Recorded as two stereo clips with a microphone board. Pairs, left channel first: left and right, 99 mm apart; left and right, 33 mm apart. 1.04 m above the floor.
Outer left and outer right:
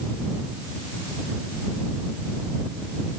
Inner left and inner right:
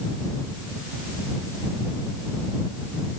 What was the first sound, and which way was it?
Only background noise.